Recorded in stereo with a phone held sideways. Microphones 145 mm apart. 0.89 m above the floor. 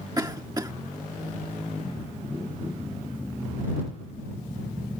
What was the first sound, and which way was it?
A cough, 25° right (ahead or behind).